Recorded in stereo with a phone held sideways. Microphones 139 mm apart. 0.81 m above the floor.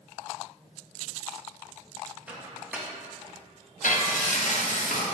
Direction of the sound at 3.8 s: 65° left (ahead or behind).